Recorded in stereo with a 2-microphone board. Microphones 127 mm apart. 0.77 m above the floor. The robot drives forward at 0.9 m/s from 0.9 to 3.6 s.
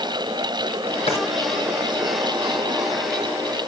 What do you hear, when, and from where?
1.1 s a drawer: 55° left (ahead or behind), 3.5 m; by 1.2 s 60° left (ahead or behind), 3.5 m